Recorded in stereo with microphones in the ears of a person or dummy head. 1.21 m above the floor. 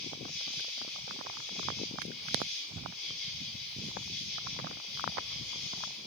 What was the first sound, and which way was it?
An insect, 5° left (ahead or behind).